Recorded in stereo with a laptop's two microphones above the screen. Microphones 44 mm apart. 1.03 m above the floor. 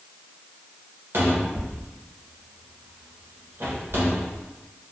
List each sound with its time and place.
1.1 s a cupboard door: 60° right (ahead or behind), 1.0 m